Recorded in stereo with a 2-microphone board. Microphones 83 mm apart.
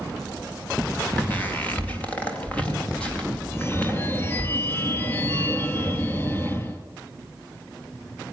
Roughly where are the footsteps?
Centre.